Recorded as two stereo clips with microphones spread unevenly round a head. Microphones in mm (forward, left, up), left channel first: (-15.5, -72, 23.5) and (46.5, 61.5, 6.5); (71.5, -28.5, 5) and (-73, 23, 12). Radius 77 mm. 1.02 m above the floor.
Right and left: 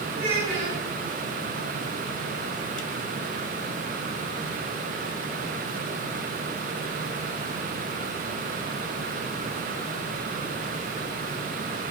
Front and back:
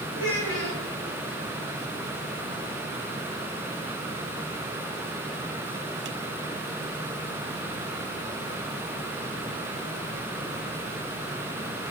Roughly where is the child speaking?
Ahead left.